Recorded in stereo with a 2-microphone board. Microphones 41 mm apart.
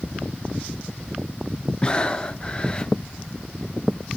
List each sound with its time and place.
1.8 s breathing: 20° left (ahead or behind), 0.5 m